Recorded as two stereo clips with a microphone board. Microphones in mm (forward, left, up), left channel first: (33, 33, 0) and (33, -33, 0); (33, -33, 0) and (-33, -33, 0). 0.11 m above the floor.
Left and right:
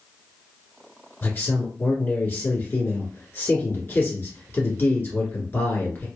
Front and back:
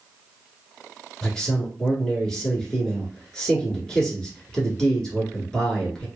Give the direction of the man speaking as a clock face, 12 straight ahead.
10 o'clock.